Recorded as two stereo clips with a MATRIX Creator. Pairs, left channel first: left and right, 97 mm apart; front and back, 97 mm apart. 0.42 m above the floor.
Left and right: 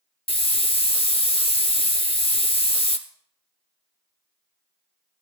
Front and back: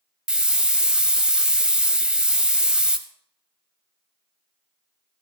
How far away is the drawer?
I don't hear a drawer.